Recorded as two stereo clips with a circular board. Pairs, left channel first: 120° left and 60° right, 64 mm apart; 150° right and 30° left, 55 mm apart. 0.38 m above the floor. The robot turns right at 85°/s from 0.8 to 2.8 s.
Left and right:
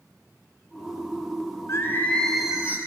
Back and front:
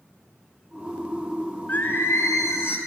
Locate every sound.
1.7 s singing: 155° left, 2 m; by 2.8 s 115° right, 2 m